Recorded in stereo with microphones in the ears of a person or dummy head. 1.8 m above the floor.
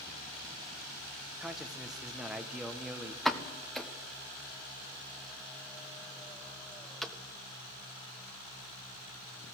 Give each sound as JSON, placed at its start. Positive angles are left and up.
{"t": 1.4, "sound": "a man speaking", "side_deg": 0, "distance_m": 1.7}
{"t": 3.2, "sound": "a pop", "side_deg": 5, "distance_m": 1.5}